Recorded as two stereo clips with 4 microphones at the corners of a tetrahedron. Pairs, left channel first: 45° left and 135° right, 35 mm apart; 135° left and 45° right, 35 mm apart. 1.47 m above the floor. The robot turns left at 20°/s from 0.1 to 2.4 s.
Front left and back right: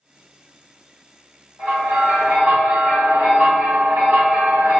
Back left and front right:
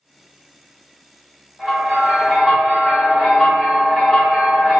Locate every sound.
1.6 s a bell: 130° right, 1.6 m; by 4.8 s 145° right, 1.6 m